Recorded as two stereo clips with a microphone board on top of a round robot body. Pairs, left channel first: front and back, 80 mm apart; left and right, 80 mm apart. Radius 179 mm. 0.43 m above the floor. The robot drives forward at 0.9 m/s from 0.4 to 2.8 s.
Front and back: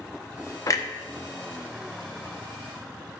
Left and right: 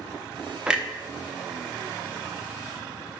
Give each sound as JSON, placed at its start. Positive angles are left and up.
{"t": 0.7, "sound": "a clunk", "azimuth_deg": -15, "distance_m": 1.2}